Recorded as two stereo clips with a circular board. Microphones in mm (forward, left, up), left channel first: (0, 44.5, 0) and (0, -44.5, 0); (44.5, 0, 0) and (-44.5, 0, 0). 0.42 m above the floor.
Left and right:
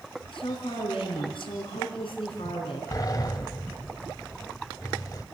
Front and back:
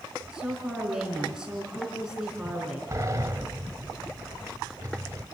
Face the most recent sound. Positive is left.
turn(degrees=130)